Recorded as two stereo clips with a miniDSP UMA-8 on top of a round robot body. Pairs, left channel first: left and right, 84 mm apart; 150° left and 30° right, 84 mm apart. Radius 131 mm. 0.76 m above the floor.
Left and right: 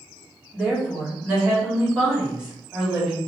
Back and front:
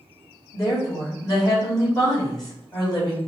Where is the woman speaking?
170° right, 2.5 m.